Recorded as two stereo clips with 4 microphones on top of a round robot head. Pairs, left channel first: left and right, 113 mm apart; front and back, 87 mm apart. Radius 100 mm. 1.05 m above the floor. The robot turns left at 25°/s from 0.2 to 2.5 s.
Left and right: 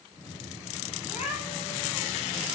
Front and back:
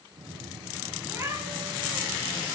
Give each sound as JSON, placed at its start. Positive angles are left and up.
{"t": 1.0, "sound": "a cat meowing", "azimuth_deg": 130, "distance_m": 8.5}